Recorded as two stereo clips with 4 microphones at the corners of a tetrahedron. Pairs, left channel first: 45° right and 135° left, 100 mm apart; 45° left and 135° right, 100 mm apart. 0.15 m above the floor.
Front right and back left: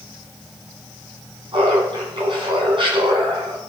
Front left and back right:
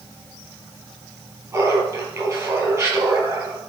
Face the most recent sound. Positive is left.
turn(degrees=170)